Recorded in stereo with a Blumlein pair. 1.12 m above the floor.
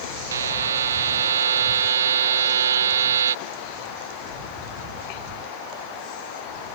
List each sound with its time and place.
0.3 s a buzzer: 65° right